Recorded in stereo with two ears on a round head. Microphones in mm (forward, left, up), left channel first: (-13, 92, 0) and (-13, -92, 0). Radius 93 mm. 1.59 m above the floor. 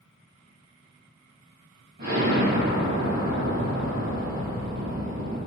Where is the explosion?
55° right (ahead or behind), 1.5 m.